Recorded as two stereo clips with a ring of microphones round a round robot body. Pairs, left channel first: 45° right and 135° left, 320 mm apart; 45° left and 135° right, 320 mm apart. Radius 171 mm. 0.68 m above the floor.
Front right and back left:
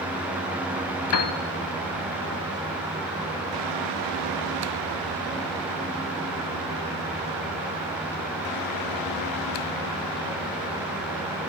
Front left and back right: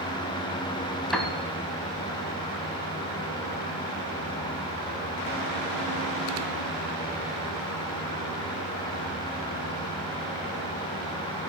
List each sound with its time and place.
1.1 s a piano: 40° right, 0.6 m